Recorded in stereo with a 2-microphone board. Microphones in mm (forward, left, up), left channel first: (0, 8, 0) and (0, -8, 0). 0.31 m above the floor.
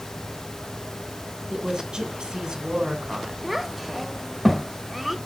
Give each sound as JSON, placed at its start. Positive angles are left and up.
{"t": 1.5, "sound": "a woman speaking", "side_deg": -60, "distance_m": 2.5}
{"t": 3.4, "sound": "a child speaking", "side_deg": -10, "distance_m": 0.6}